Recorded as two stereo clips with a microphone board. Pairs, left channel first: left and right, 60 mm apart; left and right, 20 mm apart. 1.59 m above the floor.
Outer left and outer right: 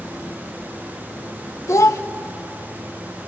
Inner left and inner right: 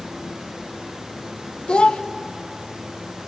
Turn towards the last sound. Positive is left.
turn(degrees=55)  # may be behind; listen again after turning